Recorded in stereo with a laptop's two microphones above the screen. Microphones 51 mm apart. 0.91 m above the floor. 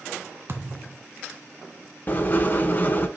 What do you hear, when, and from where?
0.5 s a thud: 50° right (ahead or behind), 1.5 m
2.1 s writing: 35° left (ahead or behind), 1.1 m